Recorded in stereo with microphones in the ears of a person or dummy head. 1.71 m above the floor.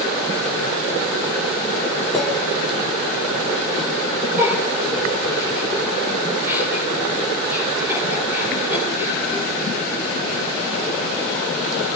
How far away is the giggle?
About 8 m.